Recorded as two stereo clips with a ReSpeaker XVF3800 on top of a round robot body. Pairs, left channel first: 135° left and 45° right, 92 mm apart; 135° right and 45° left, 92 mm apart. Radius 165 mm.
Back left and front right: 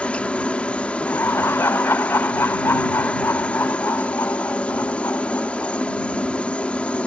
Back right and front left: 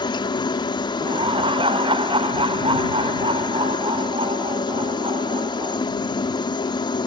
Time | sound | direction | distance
0.0 | a helicopter | 150° right | ?
1.0 | laughter | 70° left | ?